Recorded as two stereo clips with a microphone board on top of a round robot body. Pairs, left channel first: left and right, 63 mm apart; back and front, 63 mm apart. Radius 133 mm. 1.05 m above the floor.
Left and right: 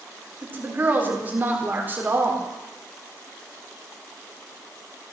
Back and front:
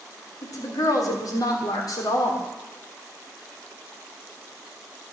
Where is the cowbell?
No cowbell in this recording.